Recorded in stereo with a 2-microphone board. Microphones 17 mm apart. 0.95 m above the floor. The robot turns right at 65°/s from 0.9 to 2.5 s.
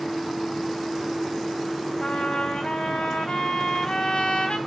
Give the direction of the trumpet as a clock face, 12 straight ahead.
10 o'clock.